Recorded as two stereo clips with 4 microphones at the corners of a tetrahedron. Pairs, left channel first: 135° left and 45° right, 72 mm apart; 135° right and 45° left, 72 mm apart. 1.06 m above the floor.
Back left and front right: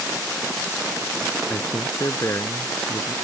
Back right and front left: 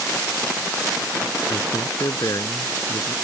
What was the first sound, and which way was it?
A man speaking, 175° right.